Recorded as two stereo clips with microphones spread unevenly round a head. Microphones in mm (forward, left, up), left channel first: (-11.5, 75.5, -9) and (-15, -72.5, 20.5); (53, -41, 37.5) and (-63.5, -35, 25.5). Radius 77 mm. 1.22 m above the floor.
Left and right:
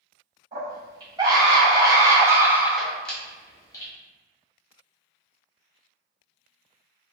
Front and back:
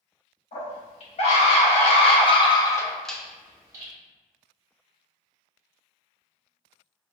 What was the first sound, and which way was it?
A scream, 25° right.